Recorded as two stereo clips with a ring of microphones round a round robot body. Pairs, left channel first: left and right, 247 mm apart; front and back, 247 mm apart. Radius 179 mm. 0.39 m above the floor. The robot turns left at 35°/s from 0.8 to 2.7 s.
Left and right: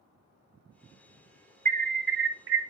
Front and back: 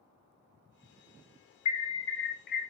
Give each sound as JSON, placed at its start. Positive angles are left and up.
{"t": 1.6, "sound": "an alarm", "azimuth_deg": -30, "distance_m": 2.0}